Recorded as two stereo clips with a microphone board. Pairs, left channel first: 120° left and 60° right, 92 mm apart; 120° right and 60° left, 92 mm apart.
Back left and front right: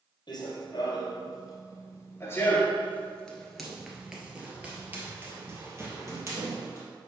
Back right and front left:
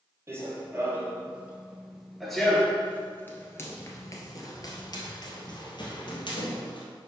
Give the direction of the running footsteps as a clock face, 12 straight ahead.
8 o'clock.